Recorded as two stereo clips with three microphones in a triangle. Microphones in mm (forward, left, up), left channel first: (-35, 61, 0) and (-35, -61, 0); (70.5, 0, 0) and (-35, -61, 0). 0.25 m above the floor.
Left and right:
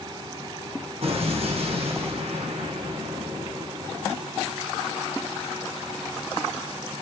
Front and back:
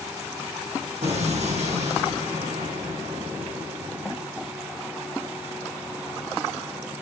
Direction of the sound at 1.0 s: 125° right.